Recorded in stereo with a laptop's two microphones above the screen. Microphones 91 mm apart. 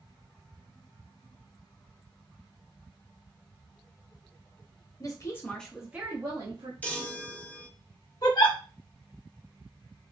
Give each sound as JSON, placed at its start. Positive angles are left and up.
{"t": 5.0, "sound": "a woman speaking", "side_deg": 40, "distance_m": 0.7}
{"t": 6.8, "sound": "a chime", "side_deg": 15, "distance_m": 0.6}
{"t": 8.2, "sound": "a giggle", "side_deg": 50, "distance_m": 0.8}